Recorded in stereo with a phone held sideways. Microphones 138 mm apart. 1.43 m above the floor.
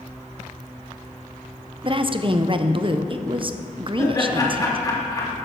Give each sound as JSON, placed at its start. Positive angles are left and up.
{"t": 1.8, "sound": "a woman speaking", "side_deg": -35, "distance_m": 0.6}
{"t": 4.0, "sound": "laughter", "side_deg": 25, "distance_m": 2.5}